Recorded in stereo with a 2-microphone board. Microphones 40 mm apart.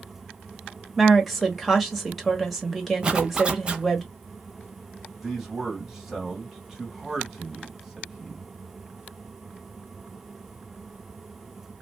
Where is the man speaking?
10° right (ahead or behind), 1.9 m.